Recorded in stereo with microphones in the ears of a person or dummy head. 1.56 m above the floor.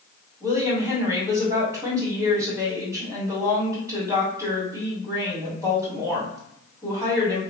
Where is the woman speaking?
20° right (ahead or behind), 1.7 m.